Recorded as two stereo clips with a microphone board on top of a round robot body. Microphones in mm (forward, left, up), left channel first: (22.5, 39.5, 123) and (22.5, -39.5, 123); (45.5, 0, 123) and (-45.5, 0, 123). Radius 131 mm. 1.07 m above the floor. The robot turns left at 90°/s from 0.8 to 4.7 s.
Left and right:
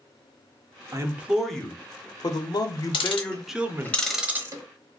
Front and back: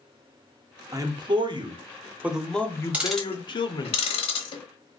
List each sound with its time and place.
0.9 s a man speaking: 135° right, 0.8 m; by 3.9 s 45° right, 0.8 m
2.9 s ticking: 105° left, 0.6 m; by 4.6 s 50° right, 0.6 m